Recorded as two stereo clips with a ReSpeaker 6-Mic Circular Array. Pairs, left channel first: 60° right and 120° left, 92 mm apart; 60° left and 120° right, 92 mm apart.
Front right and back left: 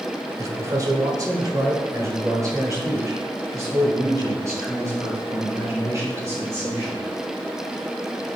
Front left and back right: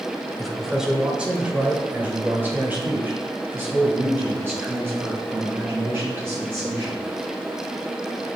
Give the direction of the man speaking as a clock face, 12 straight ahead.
7 o'clock.